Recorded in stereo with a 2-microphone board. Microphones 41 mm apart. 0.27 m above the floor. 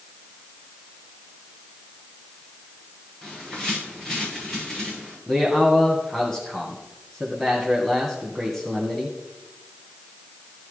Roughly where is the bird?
Centre.